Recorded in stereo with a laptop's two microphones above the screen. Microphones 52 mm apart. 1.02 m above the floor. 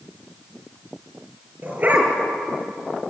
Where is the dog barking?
35° right (ahead or behind), 5 m.